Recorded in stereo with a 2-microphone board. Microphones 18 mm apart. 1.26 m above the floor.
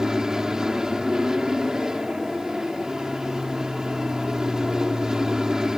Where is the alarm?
No alarm in this recording.